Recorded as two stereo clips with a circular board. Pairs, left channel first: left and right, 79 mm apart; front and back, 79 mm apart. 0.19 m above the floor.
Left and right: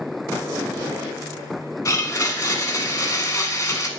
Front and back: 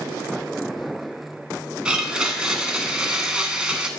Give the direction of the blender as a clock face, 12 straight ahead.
8 o'clock.